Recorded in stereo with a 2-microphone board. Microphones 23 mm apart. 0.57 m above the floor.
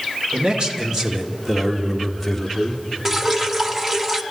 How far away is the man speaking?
About 2 m.